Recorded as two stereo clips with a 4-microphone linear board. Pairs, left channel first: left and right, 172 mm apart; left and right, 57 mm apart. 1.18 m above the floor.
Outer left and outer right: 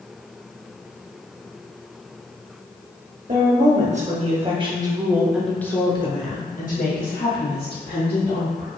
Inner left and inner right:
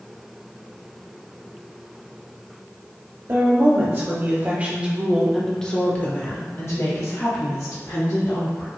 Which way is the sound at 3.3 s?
50° right (ahead or behind).